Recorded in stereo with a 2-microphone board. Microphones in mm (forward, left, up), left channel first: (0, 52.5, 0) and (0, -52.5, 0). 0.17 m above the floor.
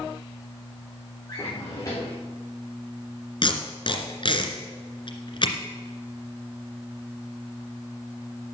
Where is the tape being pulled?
55° left (ahead or behind), 2 m.